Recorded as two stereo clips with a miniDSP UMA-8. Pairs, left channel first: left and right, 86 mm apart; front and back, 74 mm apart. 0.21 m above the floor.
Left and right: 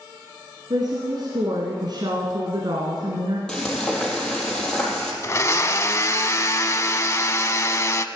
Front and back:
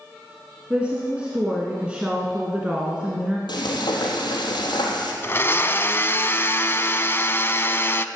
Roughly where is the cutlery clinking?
I don't hear cutlery clinking.